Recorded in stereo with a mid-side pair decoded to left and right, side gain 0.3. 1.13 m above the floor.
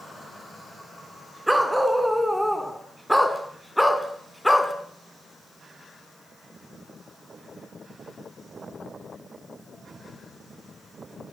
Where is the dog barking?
15° right, 4 m; by 4.7 s 15° left, 3 m.